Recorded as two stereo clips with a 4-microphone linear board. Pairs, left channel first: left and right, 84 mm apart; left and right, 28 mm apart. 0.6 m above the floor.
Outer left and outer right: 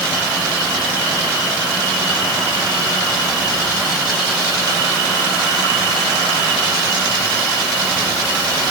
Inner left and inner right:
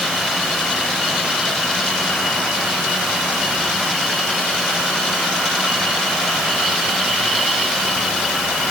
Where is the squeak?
No squeak in this recording.